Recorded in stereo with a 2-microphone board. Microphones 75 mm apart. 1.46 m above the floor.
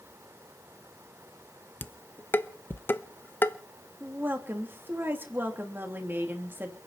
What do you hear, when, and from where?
1.8 s dishes clattering: 25° left (ahead or behind), 0.7 m
4.0 s a woman speaking: 30° right (ahead or behind), 3 m